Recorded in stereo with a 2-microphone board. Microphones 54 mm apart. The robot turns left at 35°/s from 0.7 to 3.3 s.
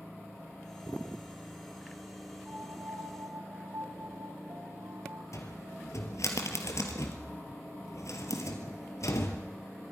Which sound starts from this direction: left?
A cupboard door, at 5.3 s.